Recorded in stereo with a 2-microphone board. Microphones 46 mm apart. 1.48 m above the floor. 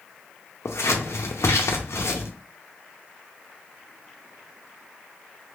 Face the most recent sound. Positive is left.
turn(degrees=85)